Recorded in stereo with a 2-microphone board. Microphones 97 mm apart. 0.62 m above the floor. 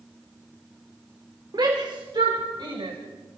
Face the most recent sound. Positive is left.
turn(degrees=-60)  # may be behind; listen again after turning